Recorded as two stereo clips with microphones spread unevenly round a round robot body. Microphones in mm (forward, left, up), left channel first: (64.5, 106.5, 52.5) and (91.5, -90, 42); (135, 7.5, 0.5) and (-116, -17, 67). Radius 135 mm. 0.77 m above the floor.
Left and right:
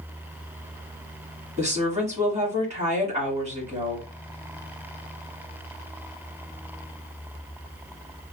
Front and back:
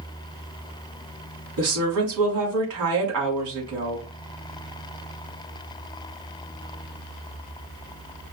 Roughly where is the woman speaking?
Behind right.